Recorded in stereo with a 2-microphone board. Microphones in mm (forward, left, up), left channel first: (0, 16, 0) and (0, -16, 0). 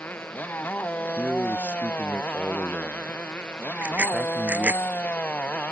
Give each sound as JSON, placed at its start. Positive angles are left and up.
{"t": 0.0, "sound": "a motorcycle", "side_deg": 80}
{"t": 1.2, "sound": "a man speaking", "side_deg": -45}
{"t": 3.8, "sound": "a bicycle bell", "side_deg": -60}